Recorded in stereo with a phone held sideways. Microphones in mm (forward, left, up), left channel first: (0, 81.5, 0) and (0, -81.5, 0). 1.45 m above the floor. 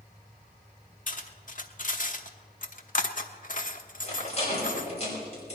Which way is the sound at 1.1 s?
55° left (ahead or behind).